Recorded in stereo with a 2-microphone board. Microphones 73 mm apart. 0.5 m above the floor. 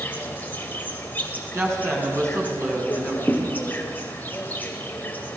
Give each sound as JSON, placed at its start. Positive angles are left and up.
{"t": 0.0, "sound": "an insect", "side_deg": 25, "distance_m": 2.5}
{"t": 1.5, "sound": "a woman speaking", "side_deg": -40, "distance_m": 4.5}
{"t": 3.3, "sound": "a thud", "side_deg": -5, "distance_m": 4.5}